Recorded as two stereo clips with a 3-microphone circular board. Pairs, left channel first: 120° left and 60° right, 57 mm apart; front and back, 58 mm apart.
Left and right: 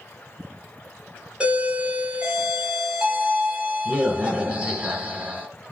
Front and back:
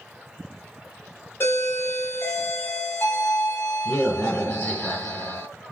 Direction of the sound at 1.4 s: 5° left.